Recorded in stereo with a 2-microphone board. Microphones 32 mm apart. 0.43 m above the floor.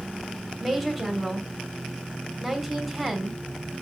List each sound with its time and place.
0.6 s a woman speaking: centre (ahead or behind), 1.0 m